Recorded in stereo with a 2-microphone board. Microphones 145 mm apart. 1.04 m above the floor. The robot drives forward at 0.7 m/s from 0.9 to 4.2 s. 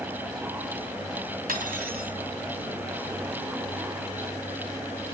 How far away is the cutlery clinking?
About 2.5 m.